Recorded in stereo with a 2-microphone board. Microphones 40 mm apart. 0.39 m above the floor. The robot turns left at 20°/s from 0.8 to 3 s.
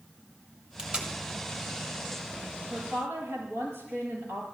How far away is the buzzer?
I don't hear a buzzer.